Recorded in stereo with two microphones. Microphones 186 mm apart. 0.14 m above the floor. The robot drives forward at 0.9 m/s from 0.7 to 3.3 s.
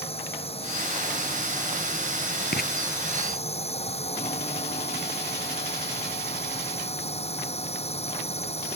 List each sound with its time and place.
0.0 s a drone: 30° left (ahead or behind); by 8.8 s 35° left (ahead or behind)
2.5 s writing: 60° left (ahead or behind)